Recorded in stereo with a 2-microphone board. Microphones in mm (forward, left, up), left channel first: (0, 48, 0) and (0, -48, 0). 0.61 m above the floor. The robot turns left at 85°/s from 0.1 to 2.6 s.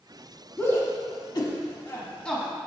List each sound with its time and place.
0.6 s a shout: 5° left (ahead or behind), 1.0 m